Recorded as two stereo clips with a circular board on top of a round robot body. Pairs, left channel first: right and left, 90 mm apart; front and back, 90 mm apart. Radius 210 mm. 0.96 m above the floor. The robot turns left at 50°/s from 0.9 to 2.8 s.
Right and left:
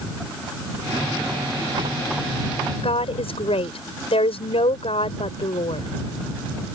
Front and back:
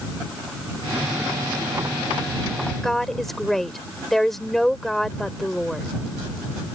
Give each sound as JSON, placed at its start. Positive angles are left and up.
{"t": 2.8, "sound": "a woman speaking", "azimuth_deg": -85}